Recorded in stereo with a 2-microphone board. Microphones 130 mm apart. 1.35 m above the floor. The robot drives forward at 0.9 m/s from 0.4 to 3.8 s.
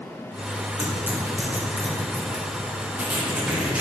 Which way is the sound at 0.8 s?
20° right (ahead or behind).